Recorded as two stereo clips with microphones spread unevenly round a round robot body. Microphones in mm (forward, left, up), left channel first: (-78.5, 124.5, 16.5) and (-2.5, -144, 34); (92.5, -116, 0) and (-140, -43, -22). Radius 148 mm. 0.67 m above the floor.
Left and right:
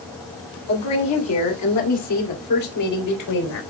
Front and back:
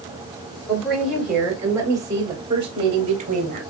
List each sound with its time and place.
0.7 s a woman speaking: 70° left, 2.5 m; by 3.6 s 100° left, 3.5 m